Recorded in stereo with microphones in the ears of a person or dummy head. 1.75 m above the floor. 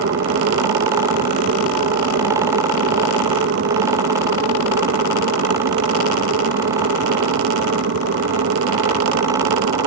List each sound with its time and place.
0.0 s an aircraft: 50° right (ahead or behind); by 9.9 s 60° right (ahead or behind)